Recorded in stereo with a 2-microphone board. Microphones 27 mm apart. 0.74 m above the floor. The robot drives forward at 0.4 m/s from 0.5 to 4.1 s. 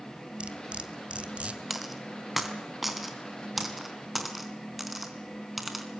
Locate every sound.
0.4 s cutlery clinking: 40° right (ahead or behind), 2.5 m; by 1.6 s 45° right (ahead or behind), 2.0 m
1.7 s a dropped coin: 5° right (ahead or behind), 3 m